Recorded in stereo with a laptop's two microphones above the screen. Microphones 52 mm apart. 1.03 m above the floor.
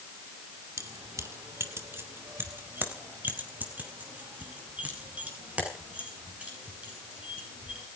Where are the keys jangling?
90° right, 2 m; by 7.8 s 25° right (ahead or behind), 11 m.